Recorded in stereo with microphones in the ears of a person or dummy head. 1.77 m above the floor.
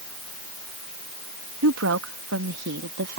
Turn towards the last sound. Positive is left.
turn(degrees=-60)  # may be behind; listen again after turning